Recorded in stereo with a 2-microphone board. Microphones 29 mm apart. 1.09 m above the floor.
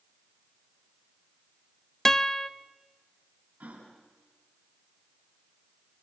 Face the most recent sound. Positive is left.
turn(degrees=-70)  # may be behind; listen again after turning